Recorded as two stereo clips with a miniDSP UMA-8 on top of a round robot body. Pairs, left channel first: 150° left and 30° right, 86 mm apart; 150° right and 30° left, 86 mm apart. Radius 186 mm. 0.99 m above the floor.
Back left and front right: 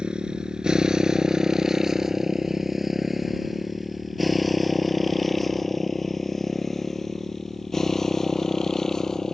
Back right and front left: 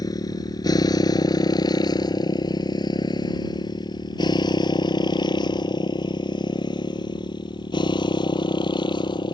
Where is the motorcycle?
110° right; by 9.3 s 125° right.